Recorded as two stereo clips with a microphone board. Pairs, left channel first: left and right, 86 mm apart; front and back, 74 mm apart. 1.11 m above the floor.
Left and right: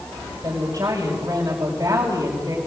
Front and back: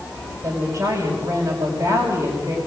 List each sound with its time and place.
0.4 s a woman speaking: 140° right, 6 m